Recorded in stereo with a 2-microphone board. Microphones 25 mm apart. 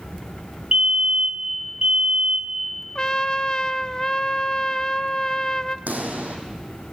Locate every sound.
0.7 s a fire alarm: 40° right (ahead or behind), 5.5 m
3.0 s a trumpet: 25° left (ahead or behind), 0.6 m
5.9 s a pop: 75° right (ahead or behind), 3 m